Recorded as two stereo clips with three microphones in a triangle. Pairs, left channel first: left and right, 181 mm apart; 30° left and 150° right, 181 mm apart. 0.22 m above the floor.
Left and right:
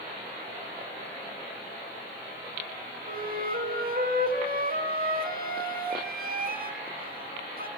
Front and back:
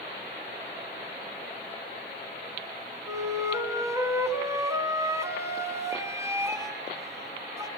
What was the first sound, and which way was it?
A flute, 80° right.